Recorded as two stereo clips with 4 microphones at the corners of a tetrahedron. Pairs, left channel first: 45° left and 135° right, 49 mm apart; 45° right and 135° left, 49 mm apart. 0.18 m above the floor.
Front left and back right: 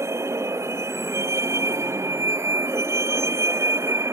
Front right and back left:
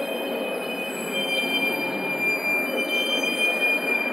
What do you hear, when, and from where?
0.0 s a vehicle: 140° right